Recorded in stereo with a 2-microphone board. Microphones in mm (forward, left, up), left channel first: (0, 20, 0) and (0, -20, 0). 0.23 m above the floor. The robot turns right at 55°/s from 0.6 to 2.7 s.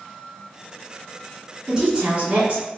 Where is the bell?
I don't hear a bell.